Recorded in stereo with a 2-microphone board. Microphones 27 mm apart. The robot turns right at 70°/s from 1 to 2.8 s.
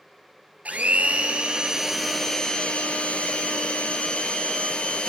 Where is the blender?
75° right, 0.9 m; by 5.1 s 50° left, 0.9 m.